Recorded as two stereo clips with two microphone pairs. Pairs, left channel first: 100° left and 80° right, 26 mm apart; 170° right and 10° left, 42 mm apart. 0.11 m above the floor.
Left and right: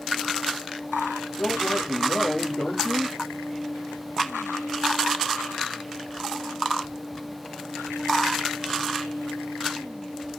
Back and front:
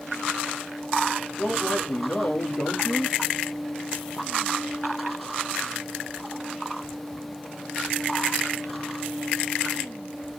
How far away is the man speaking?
About 2 m.